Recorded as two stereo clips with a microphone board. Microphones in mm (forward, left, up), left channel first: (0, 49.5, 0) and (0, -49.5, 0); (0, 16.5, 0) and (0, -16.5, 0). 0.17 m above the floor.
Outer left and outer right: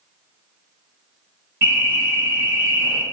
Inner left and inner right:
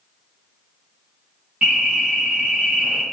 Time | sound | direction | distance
1.6 | an alarm | 25° right (ahead or behind) | 1.7 m